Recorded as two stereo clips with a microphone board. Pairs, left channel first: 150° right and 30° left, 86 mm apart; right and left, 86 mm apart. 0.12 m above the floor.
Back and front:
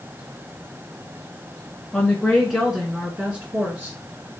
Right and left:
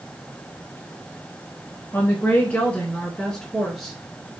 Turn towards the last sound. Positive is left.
turn(degrees=10)